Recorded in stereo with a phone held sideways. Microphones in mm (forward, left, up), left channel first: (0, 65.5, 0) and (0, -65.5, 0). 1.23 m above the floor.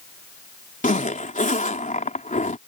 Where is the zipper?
80° left.